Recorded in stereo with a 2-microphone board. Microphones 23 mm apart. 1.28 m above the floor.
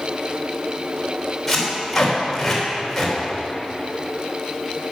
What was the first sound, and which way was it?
Tape being pulled, centre (ahead or behind).